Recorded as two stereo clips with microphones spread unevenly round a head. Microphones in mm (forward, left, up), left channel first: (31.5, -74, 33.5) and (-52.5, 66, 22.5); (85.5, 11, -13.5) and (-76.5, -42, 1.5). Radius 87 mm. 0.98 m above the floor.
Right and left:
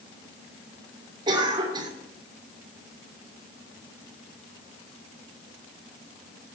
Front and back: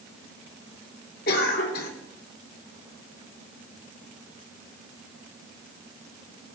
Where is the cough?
55° left, 2.5 m.